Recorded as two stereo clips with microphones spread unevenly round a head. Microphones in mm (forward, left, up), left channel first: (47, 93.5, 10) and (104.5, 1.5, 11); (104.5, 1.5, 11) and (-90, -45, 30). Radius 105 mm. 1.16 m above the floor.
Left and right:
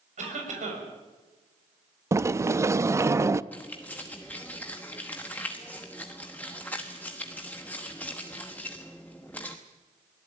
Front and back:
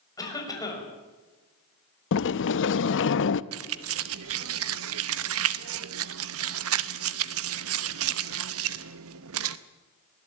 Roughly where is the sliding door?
Ahead.